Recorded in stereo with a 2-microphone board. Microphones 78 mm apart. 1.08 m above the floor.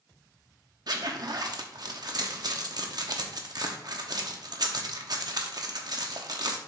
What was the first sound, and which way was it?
A zipper, 60° right (ahead or behind).